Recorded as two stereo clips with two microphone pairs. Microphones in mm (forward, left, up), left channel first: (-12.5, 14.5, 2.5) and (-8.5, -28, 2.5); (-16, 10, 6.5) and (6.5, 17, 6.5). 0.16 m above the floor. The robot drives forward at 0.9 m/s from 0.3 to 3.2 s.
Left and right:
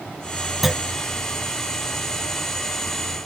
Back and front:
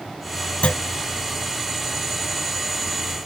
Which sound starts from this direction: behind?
A clunk, at 0.6 s.